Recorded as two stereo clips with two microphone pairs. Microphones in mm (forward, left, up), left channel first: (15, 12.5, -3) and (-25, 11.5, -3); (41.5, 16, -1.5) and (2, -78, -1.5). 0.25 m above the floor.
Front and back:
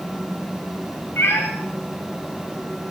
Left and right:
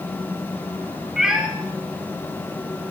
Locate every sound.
1.2 s a cat meowing: 25° right, 5 m